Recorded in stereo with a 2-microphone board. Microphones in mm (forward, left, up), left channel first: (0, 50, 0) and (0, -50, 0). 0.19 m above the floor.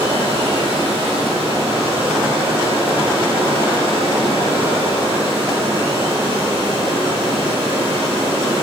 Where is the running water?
65° right (ahead or behind), 7 m.